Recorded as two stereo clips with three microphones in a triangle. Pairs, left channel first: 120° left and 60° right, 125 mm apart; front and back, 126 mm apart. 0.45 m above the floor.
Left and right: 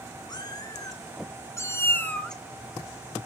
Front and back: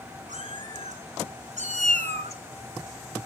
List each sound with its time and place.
0.3 s a cat meowing: 175° left, 4 m; by 3.3 s 80° right, 1.0 m